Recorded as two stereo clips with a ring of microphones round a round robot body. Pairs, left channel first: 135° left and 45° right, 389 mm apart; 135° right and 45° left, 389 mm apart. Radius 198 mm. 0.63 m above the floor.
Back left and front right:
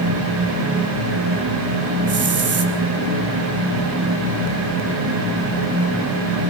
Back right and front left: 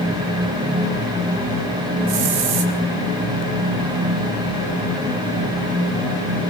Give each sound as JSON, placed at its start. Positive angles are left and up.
{"t": 2.1, "sound": "a hiss", "azimuth_deg": 15, "distance_m": 3.5}